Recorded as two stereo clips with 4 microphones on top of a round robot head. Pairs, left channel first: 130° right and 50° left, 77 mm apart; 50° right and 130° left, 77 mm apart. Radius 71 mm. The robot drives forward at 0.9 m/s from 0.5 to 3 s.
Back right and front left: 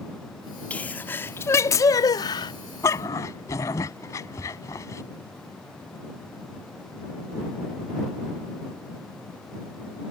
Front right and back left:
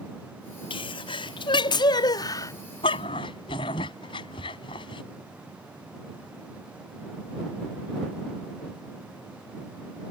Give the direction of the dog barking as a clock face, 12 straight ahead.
2 o'clock.